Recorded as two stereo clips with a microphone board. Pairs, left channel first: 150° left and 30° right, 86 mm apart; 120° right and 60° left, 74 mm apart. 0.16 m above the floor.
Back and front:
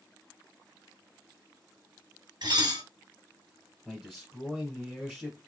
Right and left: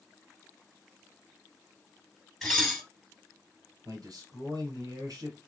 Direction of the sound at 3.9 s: 60° left.